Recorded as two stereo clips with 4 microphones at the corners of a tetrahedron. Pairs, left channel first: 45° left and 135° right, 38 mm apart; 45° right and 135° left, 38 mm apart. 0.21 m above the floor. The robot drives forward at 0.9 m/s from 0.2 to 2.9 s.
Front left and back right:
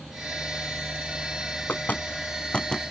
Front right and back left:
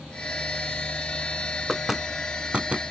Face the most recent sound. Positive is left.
turn(degrees=110)